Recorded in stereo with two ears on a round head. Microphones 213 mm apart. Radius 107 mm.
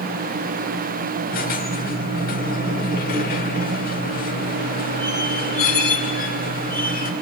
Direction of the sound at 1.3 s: 40° left (ahead or behind).